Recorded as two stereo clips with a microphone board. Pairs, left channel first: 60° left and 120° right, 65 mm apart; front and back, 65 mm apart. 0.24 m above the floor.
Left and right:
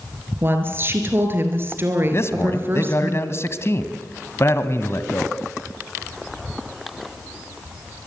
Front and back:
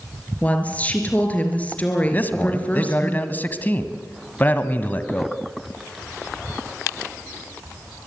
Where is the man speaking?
50° left, 1.9 m.